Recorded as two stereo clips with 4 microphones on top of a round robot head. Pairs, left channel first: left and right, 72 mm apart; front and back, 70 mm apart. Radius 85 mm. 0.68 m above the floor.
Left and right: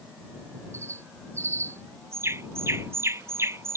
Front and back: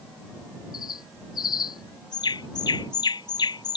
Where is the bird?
30° right.